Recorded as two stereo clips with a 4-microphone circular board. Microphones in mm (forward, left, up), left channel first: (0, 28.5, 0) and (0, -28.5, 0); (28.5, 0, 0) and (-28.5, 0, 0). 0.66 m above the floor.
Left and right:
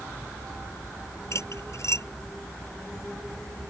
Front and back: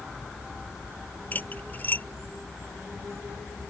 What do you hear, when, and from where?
1.3 s cutlery clinking: 60° left